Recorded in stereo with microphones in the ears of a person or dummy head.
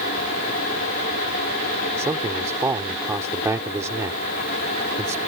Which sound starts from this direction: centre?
A man speaking, at 2.0 s.